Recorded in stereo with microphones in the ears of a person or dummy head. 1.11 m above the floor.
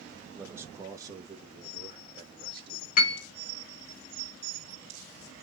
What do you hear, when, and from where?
0.3 s a man speaking: 15° right (ahead or behind), 1.0 m; by 2.9 s 35° right (ahead or behind), 2.5 m
3.0 s a piano: 55° left (ahead or behind), 0.9 m